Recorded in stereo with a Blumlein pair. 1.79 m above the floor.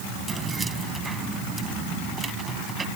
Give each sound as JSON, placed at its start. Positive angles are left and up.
{"t": 0.3, "sound": "keys jangling", "azimuth_deg": -15}